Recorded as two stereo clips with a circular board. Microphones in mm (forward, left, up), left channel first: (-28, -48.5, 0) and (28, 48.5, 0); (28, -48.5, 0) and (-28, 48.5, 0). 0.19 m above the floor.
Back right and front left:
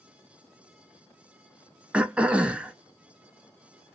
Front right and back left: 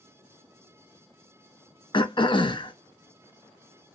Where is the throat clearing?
20° right, 0.5 m.